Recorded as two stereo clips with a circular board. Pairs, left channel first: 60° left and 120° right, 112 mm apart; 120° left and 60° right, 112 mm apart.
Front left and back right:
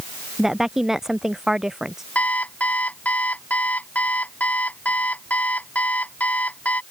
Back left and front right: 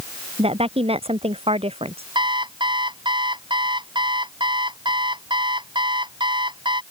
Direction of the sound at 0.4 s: 35° right.